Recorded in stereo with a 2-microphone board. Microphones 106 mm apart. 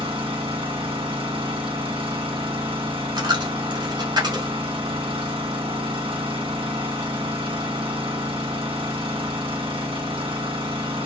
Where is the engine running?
60° right (ahead or behind), 1.8 m.